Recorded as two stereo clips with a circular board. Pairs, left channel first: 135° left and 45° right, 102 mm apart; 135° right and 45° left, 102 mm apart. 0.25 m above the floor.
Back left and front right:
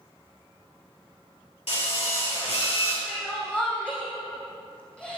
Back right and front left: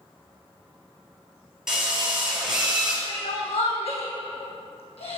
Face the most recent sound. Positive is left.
turn(degrees=-145)